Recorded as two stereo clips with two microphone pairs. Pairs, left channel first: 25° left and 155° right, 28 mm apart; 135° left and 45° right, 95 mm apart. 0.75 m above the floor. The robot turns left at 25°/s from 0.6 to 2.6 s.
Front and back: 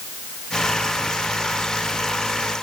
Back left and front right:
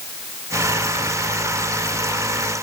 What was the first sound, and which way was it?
Only background noise.